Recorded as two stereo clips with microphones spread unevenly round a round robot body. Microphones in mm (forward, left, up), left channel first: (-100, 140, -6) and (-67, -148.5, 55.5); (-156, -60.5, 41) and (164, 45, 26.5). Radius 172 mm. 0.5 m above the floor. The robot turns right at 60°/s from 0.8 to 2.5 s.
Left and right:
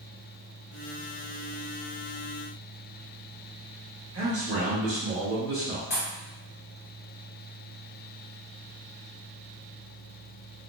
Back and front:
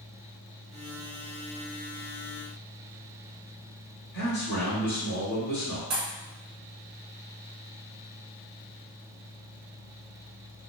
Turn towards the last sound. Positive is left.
turn(degrees=30)